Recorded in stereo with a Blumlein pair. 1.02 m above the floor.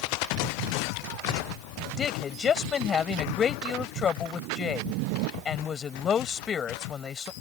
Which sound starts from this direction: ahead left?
A woman speaking, at 2.0 s.